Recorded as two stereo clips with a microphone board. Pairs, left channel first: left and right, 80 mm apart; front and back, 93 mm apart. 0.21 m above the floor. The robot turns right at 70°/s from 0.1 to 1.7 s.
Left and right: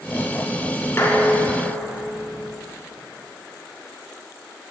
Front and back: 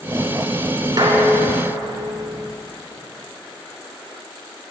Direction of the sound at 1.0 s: 145° left.